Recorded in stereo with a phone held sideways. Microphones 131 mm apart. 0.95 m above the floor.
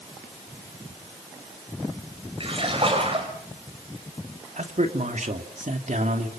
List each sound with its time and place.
2.4 s a splash: 45° right (ahead or behind), 5.5 m
4.6 s a man speaking: 70° right (ahead or behind), 2.5 m